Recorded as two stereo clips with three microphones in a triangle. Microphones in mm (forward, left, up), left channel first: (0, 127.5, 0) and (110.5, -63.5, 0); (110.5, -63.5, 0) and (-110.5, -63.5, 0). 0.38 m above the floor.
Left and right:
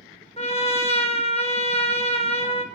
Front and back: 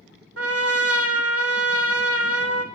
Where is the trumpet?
Straight behind, 1.2 m.